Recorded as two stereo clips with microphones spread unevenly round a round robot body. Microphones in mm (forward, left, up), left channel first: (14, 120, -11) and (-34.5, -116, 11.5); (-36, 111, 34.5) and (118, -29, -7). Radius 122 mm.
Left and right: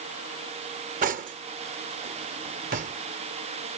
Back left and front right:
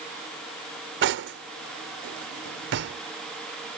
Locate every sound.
1.0 s cutlery clinking: 45° right